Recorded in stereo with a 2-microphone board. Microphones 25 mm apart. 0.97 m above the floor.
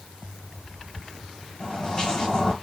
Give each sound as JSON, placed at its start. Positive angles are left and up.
{"t": 1.6, "sound": "footsteps", "side_deg": 40, "distance_m": 3.0}